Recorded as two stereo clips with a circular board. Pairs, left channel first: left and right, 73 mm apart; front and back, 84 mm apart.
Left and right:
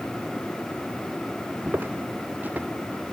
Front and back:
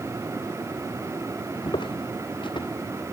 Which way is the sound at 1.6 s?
25° right.